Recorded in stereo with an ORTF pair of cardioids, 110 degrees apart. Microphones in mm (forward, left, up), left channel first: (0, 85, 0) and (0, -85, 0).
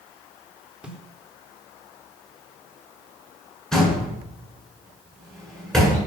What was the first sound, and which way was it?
A snare drum, 5° right.